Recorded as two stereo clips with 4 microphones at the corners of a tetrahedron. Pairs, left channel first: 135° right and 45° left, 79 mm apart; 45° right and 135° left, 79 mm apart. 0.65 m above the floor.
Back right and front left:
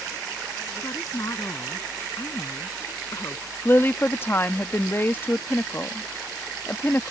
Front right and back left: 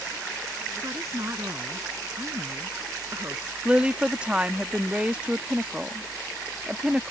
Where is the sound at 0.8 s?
Straight behind.